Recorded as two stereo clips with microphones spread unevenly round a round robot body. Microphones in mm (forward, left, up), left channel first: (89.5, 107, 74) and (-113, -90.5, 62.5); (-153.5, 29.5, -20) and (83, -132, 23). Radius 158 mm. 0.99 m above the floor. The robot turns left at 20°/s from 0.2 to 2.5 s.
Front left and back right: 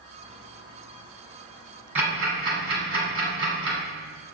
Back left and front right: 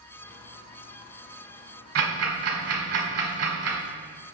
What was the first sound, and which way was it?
Ticking, 50° right.